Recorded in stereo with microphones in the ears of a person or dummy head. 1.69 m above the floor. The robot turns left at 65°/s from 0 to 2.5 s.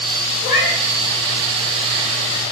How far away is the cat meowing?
About 1.4 m.